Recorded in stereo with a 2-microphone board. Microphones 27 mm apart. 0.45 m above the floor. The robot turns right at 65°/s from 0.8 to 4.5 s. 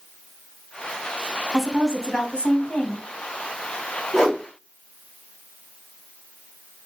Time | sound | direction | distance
1.5 | a woman speaking | 15° right | 3.5 m
4.1 | a whoosh | 30° left (ahead or behind) | 3 m